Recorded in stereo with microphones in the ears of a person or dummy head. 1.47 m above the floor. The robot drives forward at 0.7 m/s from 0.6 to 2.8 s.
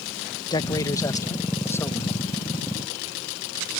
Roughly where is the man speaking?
Left.